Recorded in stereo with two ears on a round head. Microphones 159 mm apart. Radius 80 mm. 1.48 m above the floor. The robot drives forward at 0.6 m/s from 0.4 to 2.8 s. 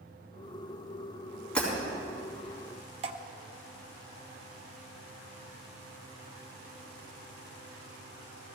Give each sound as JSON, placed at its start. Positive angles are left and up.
{"t": 1.6, "sound": "breaking glass", "side_deg": 5, "distance_m": 4.5}
{"t": 3.0, "sound": "dripping", "side_deg": -35, "distance_m": 0.7}